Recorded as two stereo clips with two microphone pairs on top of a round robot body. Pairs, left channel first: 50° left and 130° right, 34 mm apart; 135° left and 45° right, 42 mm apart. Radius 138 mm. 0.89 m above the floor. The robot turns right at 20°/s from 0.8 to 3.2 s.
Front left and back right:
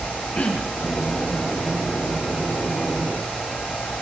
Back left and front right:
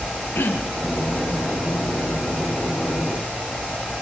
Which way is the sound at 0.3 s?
95° left.